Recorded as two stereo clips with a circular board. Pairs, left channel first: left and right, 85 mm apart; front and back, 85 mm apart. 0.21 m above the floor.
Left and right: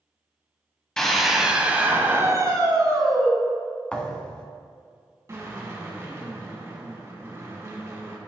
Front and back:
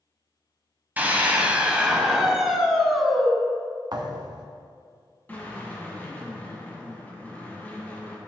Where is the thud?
165° left, 0.9 m.